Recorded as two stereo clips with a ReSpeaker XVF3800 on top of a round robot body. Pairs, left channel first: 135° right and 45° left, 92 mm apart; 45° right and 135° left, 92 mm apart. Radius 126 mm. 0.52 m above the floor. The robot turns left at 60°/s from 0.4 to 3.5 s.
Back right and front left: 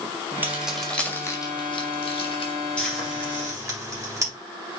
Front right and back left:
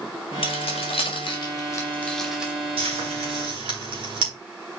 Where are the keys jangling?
25° right, 2.0 m; by 2.5 s 150° right, 2.0 m.